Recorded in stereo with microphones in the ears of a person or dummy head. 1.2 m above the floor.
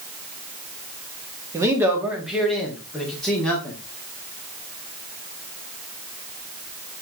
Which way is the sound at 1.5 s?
10° right (ahead or behind).